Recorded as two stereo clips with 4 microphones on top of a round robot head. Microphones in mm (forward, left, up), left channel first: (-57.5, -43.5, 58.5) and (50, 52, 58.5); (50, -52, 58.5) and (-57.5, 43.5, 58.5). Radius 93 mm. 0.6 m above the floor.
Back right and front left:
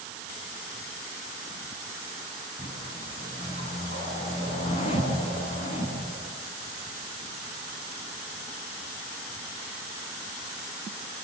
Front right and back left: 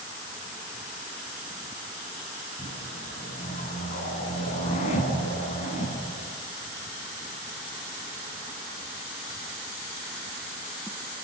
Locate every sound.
2.6 s a whoosh: 90° right, 8 m